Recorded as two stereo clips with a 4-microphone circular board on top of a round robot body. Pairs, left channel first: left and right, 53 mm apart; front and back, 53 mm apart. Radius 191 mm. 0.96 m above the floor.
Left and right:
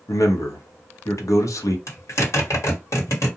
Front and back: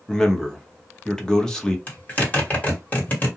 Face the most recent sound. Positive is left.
turn(degrees=65)